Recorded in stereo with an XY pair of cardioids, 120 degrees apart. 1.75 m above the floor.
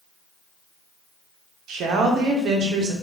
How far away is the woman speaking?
About 1.0 m.